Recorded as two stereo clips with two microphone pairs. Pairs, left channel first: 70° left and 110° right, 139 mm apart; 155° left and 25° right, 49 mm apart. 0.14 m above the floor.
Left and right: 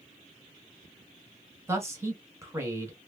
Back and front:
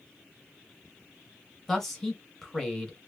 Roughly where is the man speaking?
Behind right.